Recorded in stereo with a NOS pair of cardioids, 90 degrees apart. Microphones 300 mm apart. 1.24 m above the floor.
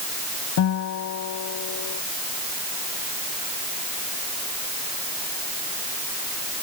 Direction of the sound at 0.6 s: 70° left.